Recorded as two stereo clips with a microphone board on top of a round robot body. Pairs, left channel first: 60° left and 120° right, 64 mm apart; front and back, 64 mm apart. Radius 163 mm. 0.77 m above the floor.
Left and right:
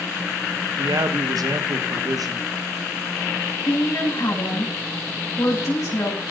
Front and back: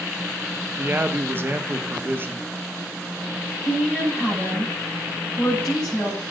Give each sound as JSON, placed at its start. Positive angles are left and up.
{"t": 0.8, "sound": "a man speaking", "azimuth_deg": -125, "distance_m": 1.5}
{"t": 3.6, "sound": "a woman speaking", "azimuth_deg": 85, "distance_m": 7.0}